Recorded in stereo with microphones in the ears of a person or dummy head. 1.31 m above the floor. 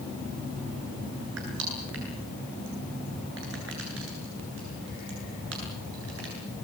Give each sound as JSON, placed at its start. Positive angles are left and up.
{"t": 1.4, "sound": "crushing", "side_deg": -75, "distance_m": 9.0}